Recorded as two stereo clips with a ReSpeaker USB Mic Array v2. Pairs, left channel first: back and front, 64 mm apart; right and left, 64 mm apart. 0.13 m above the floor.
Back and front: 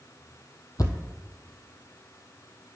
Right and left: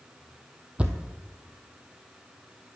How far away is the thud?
About 1.0 m.